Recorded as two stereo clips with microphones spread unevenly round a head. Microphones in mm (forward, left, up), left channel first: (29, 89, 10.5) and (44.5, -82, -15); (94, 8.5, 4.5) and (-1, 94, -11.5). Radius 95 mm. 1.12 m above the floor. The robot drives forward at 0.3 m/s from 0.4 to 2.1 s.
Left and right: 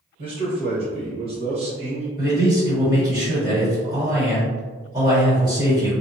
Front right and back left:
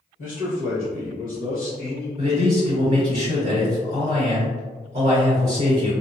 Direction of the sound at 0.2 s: 50° right.